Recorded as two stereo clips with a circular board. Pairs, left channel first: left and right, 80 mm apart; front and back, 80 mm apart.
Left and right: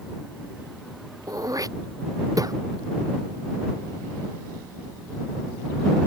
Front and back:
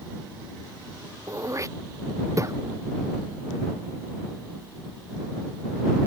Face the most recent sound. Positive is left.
turn(degrees=-130)